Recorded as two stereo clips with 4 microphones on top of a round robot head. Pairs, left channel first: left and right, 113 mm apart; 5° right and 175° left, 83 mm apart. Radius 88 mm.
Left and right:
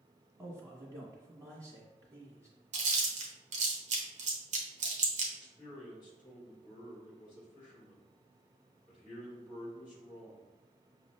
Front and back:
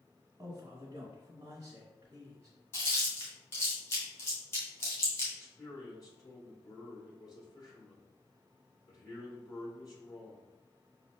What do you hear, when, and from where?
0.4 s a man speaking: 145° right, 1.4 m
2.7 s chewing: 75° right, 0.8 m
5.4 s a man speaking: 35° left, 1.9 m